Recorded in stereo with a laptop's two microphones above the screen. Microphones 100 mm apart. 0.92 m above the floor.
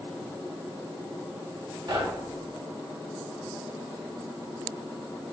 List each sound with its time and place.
1.9 s knocking: 45° right (ahead or behind), 1.2 m